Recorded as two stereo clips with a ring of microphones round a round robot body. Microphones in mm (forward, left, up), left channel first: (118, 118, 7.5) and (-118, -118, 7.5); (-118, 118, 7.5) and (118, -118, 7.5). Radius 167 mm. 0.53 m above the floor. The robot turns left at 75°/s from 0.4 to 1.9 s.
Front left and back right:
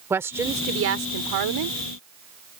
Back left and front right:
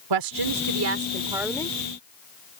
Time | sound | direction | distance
0.1 | a woman speaking | 55° right | ?